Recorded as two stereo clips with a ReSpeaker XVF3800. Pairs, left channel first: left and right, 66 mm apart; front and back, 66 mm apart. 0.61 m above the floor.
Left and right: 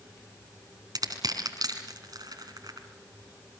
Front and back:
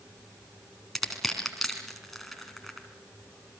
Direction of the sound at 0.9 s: 90° right.